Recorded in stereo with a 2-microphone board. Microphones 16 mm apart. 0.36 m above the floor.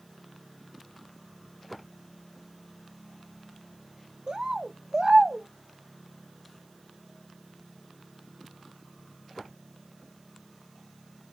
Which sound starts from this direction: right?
A bird, at 4.3 s.